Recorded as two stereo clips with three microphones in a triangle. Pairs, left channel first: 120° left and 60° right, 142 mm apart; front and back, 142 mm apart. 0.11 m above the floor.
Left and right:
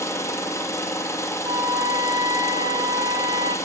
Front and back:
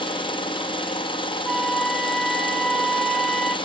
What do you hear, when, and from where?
0.0 s an engine running: 50° left, 2.5 m
1.4 s a flute: 85° right, 0.6 m